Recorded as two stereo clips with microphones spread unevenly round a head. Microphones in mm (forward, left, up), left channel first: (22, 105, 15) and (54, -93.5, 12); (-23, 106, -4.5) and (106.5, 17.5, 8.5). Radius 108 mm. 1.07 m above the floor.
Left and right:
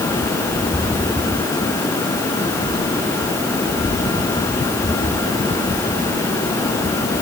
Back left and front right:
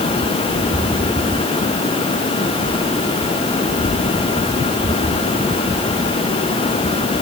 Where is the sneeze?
I don't hear a sneeze.